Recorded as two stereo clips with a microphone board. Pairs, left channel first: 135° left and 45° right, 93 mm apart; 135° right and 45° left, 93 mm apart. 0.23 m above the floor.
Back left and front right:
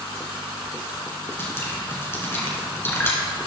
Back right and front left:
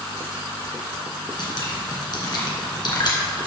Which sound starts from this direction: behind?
Dripping, at 1.4 s.